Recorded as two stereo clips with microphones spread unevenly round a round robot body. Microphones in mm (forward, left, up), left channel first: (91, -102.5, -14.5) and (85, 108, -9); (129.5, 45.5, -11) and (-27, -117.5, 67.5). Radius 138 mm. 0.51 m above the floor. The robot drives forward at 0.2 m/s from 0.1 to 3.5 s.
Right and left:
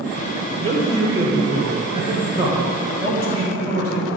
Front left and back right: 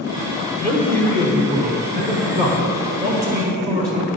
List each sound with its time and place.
0.6 s a man speaking: 150° left, 1.3 m; by 4.1 s 160° left, 1.7 m